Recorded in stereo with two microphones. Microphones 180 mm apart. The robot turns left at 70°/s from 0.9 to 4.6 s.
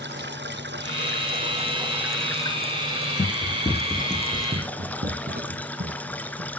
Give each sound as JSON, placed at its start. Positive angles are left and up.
{"t": 0.0, "sound": "running water", "azimuth_deg": -90, "distance_m": 1.4}
{"t": 3.2, "sound": "running footsteps", "side_deg": 45, "distance_m": 0.6}